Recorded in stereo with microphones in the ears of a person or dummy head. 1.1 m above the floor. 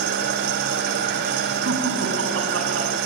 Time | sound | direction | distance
0.0 | an engine running | 60° right (ahead or behind) | 2 m
1.6 | laughter | 85° right | 7.5 m